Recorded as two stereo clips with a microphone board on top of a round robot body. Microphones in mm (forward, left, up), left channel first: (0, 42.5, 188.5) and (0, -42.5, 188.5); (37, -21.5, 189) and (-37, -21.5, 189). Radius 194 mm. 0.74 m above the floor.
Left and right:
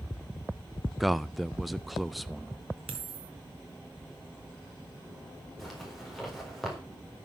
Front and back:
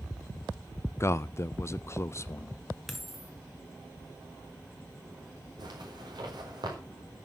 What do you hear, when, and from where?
1.0 s a man speaking: straight ahead, 0.6 m
2.9 s a dropped coin: 90° right, 1.0 m
5.6 s a zipper: straight behind, 4 m